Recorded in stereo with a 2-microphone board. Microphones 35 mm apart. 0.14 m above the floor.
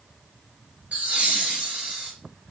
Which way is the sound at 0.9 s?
40° right (ahead or behind).